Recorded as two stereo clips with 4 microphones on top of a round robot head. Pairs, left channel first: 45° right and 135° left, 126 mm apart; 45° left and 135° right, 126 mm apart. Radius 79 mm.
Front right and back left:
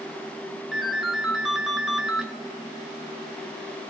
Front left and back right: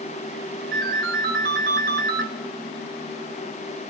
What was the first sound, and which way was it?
A ringtone, 135° right.